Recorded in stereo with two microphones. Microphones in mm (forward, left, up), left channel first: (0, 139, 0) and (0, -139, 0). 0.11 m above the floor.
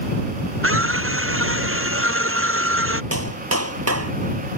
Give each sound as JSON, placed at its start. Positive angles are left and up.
{"t": 0.6, "sound": "a scream", "side_deg": -50}
{"t": 3.1, "sound": "a clap", "side_deg": -60}